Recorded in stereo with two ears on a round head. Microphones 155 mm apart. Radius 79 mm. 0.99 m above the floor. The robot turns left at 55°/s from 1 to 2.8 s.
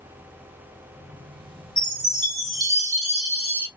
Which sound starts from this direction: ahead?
A chime, at 1.8 s.